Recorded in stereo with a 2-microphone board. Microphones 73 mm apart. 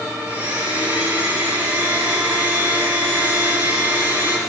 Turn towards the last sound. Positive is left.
turn(degrees=-25)  # may be behind; listen again after turning